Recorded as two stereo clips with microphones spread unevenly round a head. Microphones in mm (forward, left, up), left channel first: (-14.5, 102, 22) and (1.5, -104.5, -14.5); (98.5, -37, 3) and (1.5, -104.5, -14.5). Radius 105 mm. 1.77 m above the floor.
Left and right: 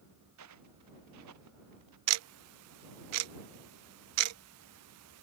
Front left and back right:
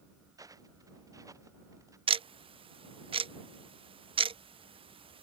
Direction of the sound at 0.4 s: 85° right.